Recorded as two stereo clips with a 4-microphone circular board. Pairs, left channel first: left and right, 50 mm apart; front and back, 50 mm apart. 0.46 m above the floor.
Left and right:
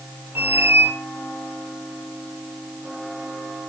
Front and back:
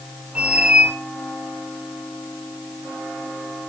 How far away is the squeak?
About 1.1 m.